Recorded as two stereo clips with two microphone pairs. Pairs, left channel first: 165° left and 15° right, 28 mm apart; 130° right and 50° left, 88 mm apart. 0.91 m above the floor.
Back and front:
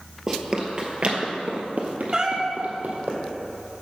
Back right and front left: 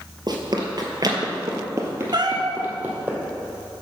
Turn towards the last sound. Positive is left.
turn(degrees=40)